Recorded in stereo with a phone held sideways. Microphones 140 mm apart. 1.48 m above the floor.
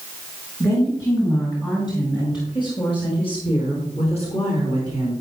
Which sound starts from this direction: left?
A woman speaking, at 0.6 s.